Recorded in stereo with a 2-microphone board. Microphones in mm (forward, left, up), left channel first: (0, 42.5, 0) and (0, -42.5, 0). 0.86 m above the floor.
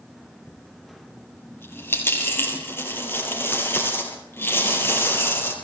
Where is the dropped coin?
25° left (ahead or behind), 4.5 m.